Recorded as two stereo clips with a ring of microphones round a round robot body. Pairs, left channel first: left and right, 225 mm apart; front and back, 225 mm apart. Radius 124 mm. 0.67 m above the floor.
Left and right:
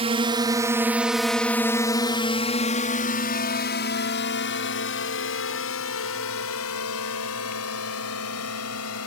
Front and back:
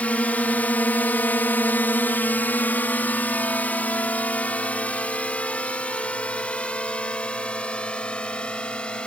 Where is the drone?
75° right; by 9.1 s 85° left.